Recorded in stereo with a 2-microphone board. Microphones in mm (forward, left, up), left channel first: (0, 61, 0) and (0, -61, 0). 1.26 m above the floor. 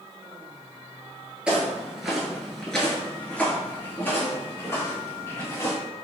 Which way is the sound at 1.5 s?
10° right (ahead or behind).